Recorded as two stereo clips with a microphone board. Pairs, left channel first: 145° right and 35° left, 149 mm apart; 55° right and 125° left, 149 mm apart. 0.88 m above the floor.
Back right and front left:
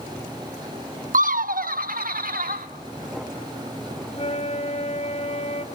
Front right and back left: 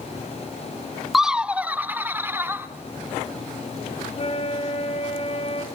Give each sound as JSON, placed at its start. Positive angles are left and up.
{"t": 1.1, "sound": "laughter", "azimuth_deg": 35, "distance_m": 0.6}
{"t": 4.1, "sound": "a flute", "azimuth_deg": -100, "distance_m": 2.0}